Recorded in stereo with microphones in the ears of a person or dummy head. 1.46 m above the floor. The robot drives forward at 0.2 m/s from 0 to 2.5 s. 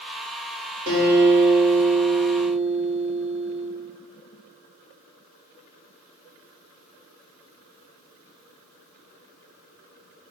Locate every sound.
0.9 s a guitar: 45° right (ahead or behind), 1.1 m; by 3.7 s 60° right (ahead or behind), 0.9 m